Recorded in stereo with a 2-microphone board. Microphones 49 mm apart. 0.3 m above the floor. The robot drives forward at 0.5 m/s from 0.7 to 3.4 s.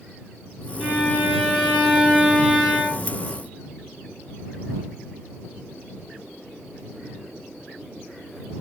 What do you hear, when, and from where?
0.8 s a violin: centre (ahead or behind), 2.5 m